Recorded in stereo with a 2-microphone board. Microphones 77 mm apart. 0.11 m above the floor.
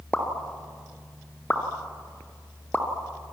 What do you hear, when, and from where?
0.1 s a pop: 15° left (ahead or behind), 1.9 m